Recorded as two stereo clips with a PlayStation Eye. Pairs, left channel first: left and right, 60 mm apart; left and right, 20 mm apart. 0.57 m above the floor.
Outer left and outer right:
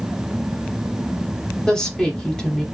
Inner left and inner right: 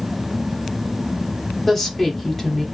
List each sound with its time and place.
1.7 s a woman speaking: 15° left (ahead or behind), 1.1 m